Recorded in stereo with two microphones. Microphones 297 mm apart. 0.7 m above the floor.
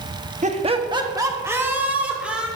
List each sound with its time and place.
0.4 s laughter: 25° right (ahead or behind), 0.9 m; by 2.5 s 5° right (ahead or behind), 2.5 m